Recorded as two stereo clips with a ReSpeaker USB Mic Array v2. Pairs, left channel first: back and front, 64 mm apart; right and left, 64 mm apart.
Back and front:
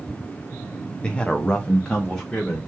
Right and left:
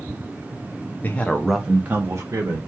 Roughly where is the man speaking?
Behind right.